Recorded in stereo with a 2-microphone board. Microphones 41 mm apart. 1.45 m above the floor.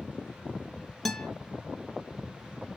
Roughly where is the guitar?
Centre.